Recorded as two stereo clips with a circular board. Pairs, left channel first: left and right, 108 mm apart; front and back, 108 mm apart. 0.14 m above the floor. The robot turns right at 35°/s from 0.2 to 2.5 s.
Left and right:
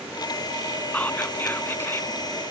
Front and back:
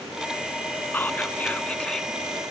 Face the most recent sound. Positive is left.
turn(degrees=90)